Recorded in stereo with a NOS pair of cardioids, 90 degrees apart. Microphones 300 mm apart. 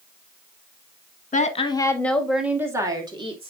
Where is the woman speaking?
25° left, 1.5 m; by 3.5 s 20° right, 2.5 m.